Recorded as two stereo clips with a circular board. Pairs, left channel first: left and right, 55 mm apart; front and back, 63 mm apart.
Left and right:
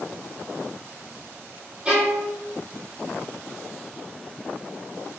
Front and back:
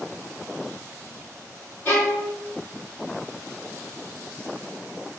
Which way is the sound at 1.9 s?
30° right.